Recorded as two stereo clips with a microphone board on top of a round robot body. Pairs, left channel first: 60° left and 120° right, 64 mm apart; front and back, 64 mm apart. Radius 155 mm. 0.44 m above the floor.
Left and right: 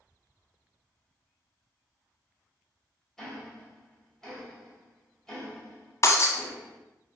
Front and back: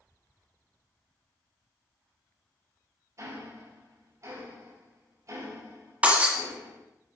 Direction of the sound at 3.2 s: 145° left.